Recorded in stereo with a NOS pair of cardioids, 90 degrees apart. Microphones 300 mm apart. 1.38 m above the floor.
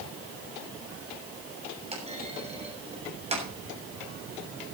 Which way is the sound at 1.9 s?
20° right.